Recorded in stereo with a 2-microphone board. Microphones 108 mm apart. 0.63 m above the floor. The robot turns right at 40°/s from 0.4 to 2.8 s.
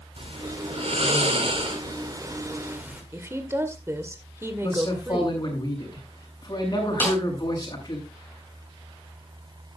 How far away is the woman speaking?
About 1.8 m.